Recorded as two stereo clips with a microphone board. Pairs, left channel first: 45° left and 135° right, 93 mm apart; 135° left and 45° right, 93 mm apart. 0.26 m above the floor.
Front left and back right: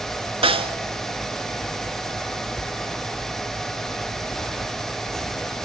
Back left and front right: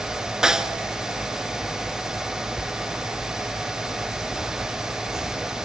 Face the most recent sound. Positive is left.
turn(degrees=-130)